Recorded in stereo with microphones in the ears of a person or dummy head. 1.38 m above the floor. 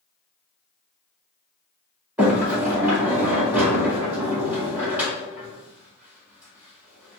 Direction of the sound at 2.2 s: 10° right (ahead or behind).